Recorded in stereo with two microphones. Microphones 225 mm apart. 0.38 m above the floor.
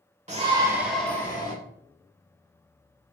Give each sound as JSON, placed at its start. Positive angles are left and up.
{"t": 0.3, "sound": "a shout", "side_deg": -35, "distance_m": 1.1}